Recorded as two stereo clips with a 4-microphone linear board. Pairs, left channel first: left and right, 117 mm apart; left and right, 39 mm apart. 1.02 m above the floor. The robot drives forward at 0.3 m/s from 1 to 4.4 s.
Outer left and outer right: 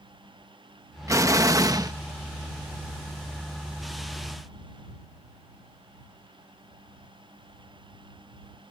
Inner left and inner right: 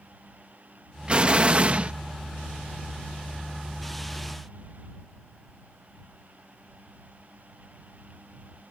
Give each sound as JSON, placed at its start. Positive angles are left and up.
{"t": 1.1, "sound": "an explosion", "side_deg": -25}